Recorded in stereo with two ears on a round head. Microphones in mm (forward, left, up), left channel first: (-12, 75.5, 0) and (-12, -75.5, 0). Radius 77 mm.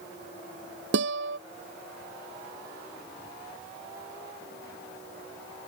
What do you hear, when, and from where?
0.9 s a guitar: 85° right